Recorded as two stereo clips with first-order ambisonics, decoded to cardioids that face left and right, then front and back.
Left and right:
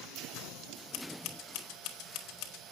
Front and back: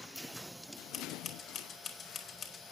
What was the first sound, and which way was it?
Scissors, 65° left.